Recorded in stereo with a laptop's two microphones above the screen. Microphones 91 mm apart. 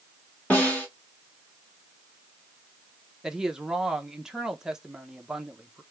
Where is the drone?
No drone in this recording.